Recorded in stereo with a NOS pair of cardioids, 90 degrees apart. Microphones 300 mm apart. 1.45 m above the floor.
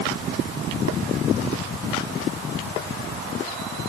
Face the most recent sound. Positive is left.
No sound to turn to.